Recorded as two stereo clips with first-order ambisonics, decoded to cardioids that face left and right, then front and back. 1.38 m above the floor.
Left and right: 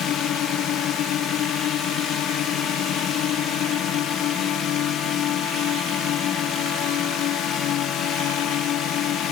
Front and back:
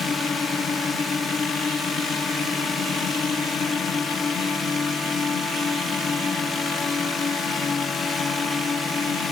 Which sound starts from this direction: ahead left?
A drone, at 0.0 s.